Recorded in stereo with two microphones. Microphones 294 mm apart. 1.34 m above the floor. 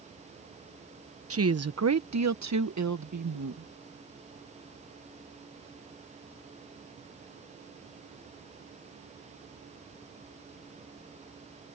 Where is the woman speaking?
50° right (ahead or behind); by 3.7 s 75° right (ahead or behind).